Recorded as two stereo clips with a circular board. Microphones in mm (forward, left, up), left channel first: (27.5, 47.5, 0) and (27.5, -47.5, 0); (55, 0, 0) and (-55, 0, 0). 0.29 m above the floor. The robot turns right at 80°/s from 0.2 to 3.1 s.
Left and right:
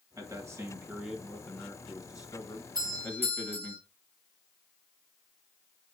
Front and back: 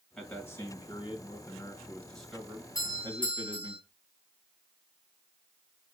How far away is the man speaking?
About 1.8 m.